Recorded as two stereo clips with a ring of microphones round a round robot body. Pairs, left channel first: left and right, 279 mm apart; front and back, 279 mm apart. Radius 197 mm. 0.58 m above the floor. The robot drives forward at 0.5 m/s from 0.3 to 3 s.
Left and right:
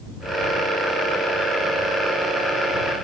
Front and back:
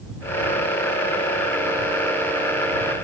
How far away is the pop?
No pop in this recording.